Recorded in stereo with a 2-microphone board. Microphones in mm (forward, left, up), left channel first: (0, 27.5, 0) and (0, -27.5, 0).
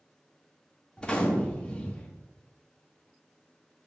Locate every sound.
1.0 s a gunshot: 20° left (ahead or behind), 0.7 m